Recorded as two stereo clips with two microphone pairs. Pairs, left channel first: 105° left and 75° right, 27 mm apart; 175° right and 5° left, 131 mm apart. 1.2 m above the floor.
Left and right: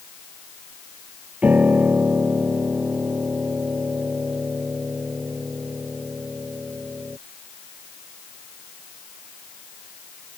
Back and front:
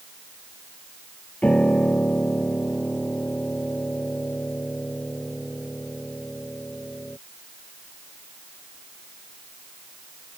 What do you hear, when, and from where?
1.4 s a piano: 95° right